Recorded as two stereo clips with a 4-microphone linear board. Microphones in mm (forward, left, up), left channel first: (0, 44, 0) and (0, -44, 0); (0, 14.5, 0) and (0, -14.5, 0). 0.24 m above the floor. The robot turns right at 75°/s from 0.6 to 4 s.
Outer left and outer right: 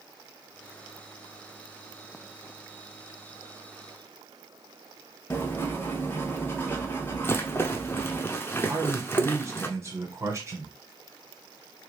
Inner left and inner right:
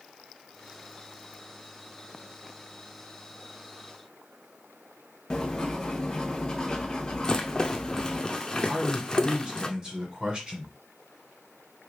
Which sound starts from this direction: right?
A man speaking, at 8.7 s.